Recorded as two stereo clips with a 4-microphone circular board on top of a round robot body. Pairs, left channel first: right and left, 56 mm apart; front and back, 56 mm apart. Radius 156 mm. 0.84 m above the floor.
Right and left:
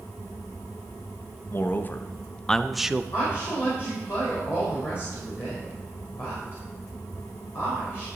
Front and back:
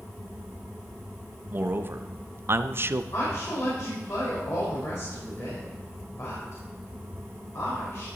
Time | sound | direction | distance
1.5 | a man speaking | 130° right | 1.1 m
3.1 | a woman speaking | 45° right | 4 m